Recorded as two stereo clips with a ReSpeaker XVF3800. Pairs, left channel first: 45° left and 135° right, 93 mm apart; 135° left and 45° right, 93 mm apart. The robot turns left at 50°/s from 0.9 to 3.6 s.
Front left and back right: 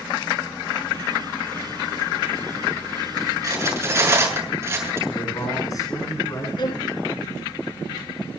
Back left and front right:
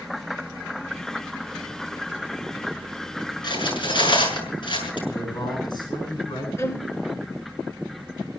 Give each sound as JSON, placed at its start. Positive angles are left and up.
{"t": 3.4, "sound": "cutlery clinking", "azimuth_deg": 175, "distance_m": 6.5}
{"t": 5.1, "sound": "a man speaking", "azimuth_deg": 95, "distance_m": 8.5}
{"t": 6.6, "sound": "a violin", "azimuth_deg": 75, "distance_m": 1.7}